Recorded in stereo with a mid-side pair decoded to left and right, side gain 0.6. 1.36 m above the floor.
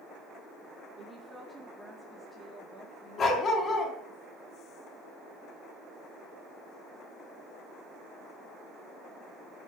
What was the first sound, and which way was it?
A woman speaking, 25° right.